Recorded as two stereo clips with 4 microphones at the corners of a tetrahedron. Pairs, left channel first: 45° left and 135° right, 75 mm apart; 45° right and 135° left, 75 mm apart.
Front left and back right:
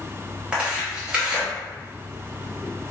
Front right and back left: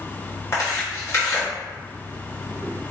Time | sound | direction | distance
0.5 | tearing paper | 70° right | 1.4 m